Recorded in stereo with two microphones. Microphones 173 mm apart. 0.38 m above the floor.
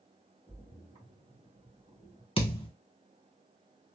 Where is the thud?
30° left (ahead or behind), 1.0 m.